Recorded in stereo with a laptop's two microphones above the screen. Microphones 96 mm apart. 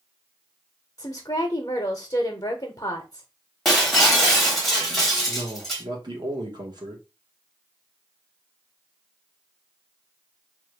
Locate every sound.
1.0 s a woman speaking: 35° left (ahead or behind), 0.7 m
3.6 s breaking glass: centre (ahead or behind), 0.8 m
5.3 s a man speaking: 50° right (ahead or behind), 1.0 m